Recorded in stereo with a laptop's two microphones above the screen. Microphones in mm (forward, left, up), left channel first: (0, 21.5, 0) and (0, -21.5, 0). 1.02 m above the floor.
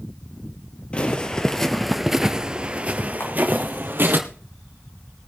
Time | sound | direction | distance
0.9 | footsteps | 25° left (ahead or behind) | 1.3 m
3.2 | a camera shutter | 75° left (ahead or behind) | 7 m